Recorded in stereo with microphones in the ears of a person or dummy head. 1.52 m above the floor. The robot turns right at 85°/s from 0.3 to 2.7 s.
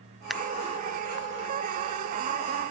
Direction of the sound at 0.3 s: Centre (ahead or behind).